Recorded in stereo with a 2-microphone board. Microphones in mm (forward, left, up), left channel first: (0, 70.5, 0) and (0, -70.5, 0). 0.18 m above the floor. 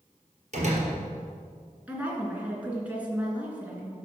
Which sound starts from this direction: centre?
A woman speaking, at 1.9 s.